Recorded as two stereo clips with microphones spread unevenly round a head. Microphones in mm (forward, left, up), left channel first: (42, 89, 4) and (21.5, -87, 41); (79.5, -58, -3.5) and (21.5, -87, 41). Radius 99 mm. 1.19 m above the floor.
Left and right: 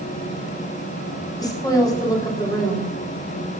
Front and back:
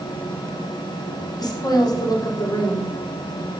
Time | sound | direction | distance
1.4 | a woman speaking | 15° left | 3 m